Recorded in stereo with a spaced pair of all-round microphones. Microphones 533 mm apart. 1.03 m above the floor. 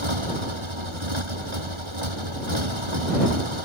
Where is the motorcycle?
65° right (ahead or behind).